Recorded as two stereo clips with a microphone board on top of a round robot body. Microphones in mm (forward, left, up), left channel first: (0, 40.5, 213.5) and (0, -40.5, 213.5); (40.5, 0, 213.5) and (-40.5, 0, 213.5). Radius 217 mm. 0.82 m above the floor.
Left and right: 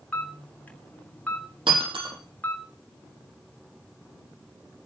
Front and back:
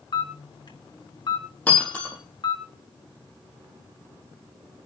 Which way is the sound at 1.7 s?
75° right.